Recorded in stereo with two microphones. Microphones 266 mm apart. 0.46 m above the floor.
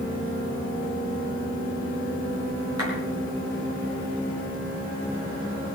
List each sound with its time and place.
2.8 s a clap: 70° right (ahead or behind), 6.5 m